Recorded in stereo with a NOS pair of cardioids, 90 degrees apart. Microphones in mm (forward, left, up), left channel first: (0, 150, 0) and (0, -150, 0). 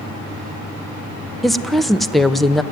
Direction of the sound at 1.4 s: Straight ahead.